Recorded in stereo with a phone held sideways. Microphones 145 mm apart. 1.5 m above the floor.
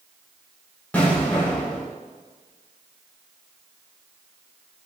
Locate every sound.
0.9 s an explosion: 10° left (ahead or behind), 4 m